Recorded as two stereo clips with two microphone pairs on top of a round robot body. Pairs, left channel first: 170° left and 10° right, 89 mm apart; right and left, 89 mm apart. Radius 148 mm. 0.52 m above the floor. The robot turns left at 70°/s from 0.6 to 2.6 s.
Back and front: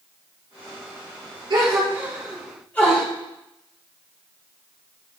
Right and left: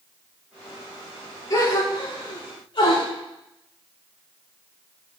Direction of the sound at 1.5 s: 40° right.